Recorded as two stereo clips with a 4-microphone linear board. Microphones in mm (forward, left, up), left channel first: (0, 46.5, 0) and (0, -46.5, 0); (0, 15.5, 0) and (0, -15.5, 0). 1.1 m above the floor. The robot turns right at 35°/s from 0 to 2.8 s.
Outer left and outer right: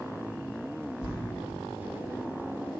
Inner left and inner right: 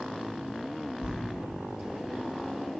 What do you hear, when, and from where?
1.0 s writing: 50° right (ahead or behind), 0.8 m; by 1.1 s 55° right (ahead or behind), 0.8 m